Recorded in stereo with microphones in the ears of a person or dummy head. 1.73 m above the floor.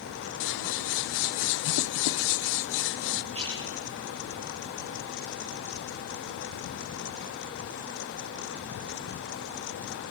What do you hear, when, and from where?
0.4 s scissors: 65° left (ahead or behind), 0.9 m
3.3 s a splash: 35° right (ahead or behind), 9 m